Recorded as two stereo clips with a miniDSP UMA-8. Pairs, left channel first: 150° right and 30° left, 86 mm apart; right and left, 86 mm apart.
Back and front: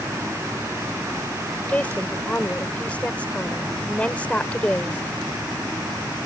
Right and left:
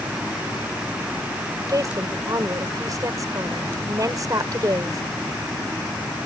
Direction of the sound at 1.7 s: 135° left.